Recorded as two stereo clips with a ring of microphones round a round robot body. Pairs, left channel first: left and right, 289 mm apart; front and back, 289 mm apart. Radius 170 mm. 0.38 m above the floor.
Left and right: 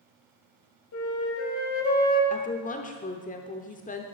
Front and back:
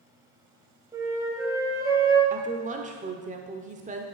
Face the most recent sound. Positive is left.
turn(degrees=135)